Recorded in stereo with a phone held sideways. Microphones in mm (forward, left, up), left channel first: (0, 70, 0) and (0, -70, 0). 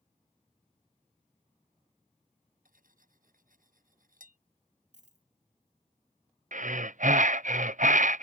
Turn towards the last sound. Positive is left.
turn(degrees=-65)  # may be behind; listen again after turning